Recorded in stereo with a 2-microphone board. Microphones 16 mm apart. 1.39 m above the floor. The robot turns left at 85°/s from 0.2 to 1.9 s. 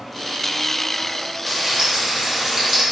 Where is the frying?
15° right, 0.8 m; by 2.8 s 50° right, 0.8 m.